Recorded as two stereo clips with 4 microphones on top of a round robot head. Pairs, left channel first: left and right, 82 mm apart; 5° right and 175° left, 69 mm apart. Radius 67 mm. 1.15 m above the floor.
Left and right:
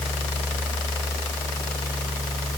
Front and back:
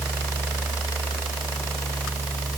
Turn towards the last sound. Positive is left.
No sound to turn to.